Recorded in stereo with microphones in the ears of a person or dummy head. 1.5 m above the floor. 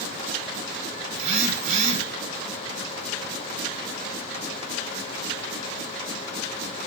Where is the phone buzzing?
35° right (ahead or behind), 0.8 m.